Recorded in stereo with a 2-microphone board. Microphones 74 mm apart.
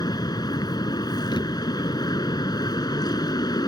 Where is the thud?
90° left.